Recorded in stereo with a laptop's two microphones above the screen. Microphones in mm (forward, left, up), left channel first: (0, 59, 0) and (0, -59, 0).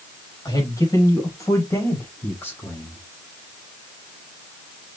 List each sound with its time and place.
0.5 s a man speaking: 35° left (ahead or behind), 6 m; by 3.0 s 15° left (ahead or behind), 6.5 m